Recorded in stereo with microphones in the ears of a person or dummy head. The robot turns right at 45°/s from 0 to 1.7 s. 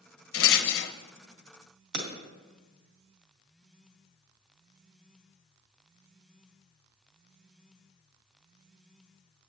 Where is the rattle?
65° left (ahead or behind), 0.6 m; by 0.9 s 50° left (ahead or behind), 0.6 m.